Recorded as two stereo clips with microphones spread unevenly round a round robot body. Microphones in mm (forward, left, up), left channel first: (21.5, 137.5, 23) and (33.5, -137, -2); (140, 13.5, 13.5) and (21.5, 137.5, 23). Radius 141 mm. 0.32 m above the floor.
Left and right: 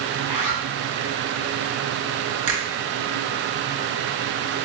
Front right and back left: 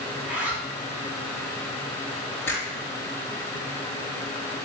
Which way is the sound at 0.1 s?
115° right.